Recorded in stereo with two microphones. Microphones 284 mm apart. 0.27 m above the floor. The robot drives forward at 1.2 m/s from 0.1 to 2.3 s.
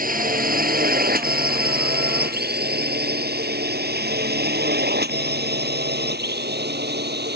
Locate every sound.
0.0 s a drone: 30° right (ahead or behind); by 7.4 s 35° right (ahead or behind)